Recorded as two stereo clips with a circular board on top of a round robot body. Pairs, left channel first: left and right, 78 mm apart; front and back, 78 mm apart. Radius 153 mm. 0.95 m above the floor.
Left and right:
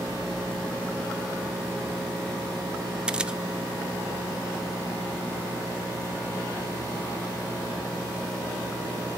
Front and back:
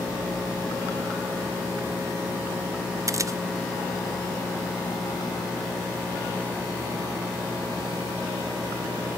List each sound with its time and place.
3.1 s a camera shutter: 165° right, 0.9 m